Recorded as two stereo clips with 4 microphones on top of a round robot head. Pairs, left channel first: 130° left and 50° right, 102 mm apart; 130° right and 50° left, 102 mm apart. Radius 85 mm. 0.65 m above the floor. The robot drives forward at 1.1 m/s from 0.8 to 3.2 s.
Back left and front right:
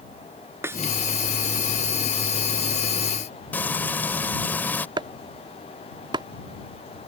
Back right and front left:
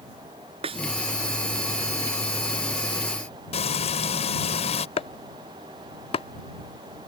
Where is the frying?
155° right.